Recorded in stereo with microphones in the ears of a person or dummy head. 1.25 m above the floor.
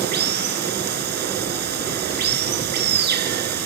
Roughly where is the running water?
Right.